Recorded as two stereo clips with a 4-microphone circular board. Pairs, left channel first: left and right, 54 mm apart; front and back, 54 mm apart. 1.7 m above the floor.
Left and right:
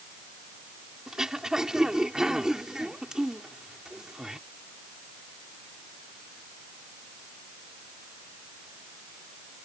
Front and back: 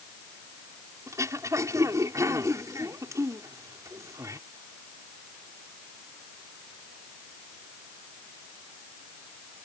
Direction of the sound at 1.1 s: 170° right.